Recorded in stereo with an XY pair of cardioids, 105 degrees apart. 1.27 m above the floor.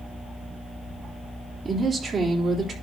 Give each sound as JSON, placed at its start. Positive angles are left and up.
{"t": 1.6, "sound": "a woman speaking", "azimuth_deg": -40, "distance_m": 3.5}